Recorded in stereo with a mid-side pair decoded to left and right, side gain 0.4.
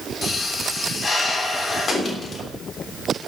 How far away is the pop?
About 3 m.